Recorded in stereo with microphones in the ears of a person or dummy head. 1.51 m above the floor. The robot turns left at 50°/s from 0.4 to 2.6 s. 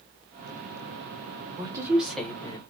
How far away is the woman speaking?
About 0.8 m.